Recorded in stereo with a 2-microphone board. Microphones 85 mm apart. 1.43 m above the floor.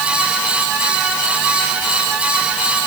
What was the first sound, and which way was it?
Only background noise.